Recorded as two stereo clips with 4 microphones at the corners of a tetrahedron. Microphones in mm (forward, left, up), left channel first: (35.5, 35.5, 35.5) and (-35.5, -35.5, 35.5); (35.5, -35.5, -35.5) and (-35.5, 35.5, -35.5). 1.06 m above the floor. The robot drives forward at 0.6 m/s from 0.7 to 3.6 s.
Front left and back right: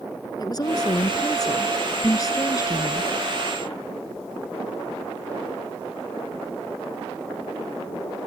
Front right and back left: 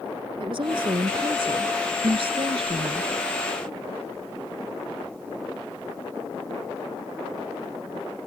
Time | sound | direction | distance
0.4 | a woman speaking | 95° left | ?